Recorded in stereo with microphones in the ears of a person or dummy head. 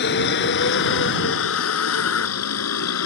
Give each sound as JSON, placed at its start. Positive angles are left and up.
{"t": 0.0, "sound": "a vehicle", "side_deg": 60}